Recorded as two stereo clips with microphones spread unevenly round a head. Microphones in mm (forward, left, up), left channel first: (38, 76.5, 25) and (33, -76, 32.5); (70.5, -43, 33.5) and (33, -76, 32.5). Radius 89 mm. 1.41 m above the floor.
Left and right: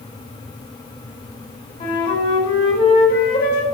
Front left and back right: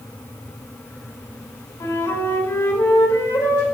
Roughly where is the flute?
Ahead left.